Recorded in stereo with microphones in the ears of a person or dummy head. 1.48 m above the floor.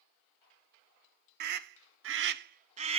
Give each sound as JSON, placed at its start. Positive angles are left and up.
{"t": 1.4, "sound": "a scream", "side_deg": -55, "distance_m": 0.6}